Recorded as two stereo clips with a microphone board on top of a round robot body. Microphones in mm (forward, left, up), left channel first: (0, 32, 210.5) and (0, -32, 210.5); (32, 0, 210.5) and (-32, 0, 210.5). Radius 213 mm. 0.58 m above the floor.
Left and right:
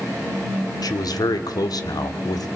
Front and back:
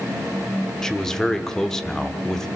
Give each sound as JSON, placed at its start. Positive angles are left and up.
{"t": 0.8, "sound": "a man speaking", "azimuth_deg": 80, "distance_m": 1.8}